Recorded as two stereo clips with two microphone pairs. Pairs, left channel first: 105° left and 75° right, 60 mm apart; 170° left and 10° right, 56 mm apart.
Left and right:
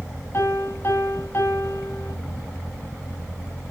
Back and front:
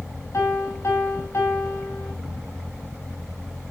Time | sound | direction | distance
0.3 | a piano | 145° left | 3.5 m